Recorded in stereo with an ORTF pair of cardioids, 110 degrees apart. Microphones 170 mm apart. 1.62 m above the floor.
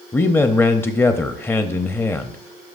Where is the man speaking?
15° left, 0.5 m.